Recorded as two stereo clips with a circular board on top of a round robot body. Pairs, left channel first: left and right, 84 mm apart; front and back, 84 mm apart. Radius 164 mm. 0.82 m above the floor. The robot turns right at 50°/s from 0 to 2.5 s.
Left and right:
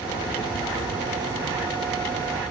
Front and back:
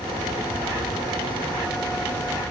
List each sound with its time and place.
Only background noise.